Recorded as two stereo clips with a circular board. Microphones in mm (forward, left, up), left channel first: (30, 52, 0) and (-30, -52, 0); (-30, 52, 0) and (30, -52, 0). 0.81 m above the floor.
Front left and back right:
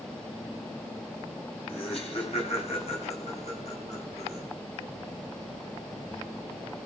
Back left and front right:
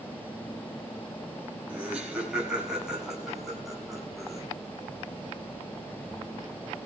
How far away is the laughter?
About 8 m.